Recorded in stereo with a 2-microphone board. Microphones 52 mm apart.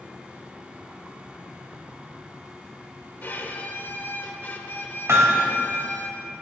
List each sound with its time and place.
3.2 s a violin: 40° left (ahead or behind), 1.3 m
5.1 s hammering: 60° right (ahead or behind), 2 m